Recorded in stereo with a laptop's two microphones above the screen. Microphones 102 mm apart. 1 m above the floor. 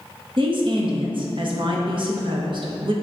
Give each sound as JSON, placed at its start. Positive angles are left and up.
{"t": 0.4, "sound": "a woman speaking", "side_deg": -55, "distance_m": 1.1}